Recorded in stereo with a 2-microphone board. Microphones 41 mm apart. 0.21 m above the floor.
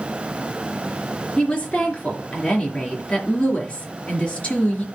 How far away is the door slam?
I don't hear a door slam.